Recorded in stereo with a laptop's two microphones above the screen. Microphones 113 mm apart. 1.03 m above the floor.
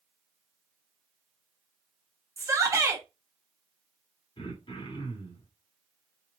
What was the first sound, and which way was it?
A shout, 25° right (ahead or behind).